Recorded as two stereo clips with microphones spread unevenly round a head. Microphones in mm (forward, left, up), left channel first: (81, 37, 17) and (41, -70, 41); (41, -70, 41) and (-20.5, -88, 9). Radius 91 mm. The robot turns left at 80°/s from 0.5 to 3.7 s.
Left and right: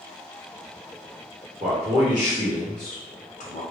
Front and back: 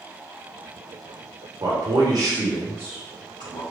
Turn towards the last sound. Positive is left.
turn(degrees=35)